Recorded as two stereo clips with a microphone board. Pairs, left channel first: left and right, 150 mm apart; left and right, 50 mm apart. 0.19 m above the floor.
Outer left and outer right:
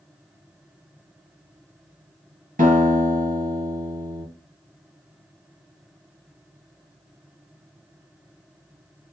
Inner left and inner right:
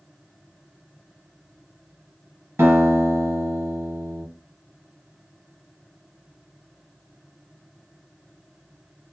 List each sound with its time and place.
2.6 s a guitar: 65° right (ahead or behind), 2.5 m